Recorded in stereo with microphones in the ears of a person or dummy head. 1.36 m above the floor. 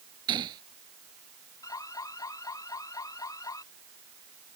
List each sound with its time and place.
0.3 s a gunshot: 20° right (ahead or behind)
1.6 s an alarm: 20° left (ahead or behind)